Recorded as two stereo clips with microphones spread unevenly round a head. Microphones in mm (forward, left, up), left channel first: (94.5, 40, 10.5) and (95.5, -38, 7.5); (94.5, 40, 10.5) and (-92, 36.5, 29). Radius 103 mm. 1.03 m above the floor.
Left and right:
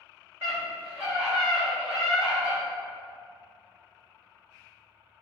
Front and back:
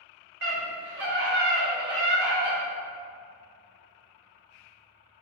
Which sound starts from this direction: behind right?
A scream, at 0.4 s.